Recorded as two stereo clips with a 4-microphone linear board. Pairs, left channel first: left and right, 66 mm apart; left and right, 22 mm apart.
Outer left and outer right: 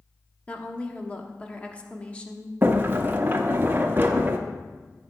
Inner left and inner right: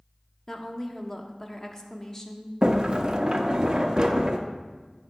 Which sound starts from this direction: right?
A sliding door, at 2.6 s.